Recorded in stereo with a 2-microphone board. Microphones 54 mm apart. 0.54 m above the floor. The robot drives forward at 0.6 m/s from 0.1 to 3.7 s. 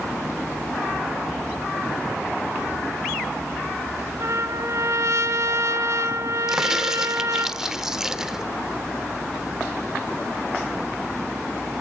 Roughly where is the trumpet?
Right.